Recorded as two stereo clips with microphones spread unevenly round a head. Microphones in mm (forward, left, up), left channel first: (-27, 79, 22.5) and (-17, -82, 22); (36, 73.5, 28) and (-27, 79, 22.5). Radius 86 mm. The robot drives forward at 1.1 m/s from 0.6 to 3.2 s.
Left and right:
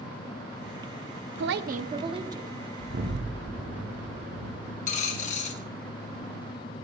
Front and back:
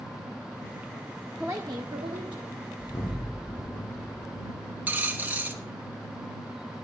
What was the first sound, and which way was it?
A woman speaking, 100° right.